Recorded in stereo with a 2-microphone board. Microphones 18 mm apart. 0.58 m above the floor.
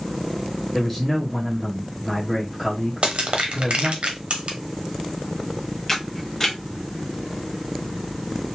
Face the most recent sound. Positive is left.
turn(degrees=20)  # may be behind; listen again after turning